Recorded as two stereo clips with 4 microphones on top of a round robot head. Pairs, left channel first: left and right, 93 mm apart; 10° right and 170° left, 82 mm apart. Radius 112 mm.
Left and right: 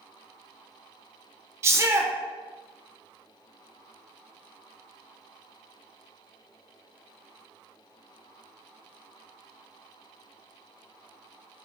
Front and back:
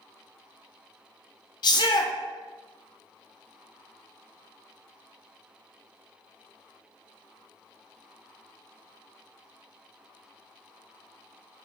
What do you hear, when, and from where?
1.6 s a shout: 30° right, 0.6 m